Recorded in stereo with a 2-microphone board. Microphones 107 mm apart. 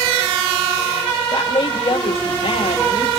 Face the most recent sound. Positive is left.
turn(degrees=65)  # may be behind; listen again after turning